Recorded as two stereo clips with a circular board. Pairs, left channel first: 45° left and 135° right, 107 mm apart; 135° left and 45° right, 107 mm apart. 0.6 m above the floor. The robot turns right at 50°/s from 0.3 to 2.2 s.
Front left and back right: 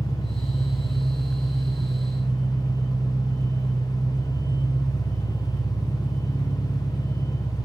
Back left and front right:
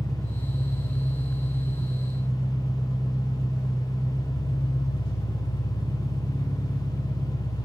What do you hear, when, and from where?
0.0 s an engine running: 55° left, 1.1 m; by 7.7 s 150° left, 1.1 m